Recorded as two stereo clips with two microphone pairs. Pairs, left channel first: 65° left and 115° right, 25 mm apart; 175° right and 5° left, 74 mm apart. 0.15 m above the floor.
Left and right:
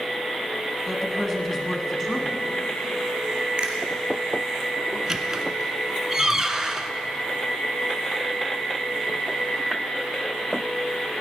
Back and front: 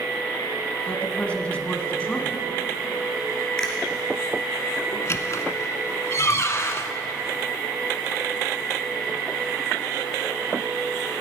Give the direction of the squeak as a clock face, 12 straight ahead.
6 o'clock.